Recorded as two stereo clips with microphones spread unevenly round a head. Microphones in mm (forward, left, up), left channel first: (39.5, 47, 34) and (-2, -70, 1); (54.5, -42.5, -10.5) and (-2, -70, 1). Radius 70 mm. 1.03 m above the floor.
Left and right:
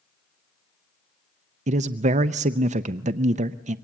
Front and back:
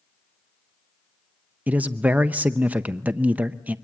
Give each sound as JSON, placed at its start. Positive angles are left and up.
{"t": 1.7, "sound": "a man speaking", "azimuth_deg": -85, "distance_m": 0.6}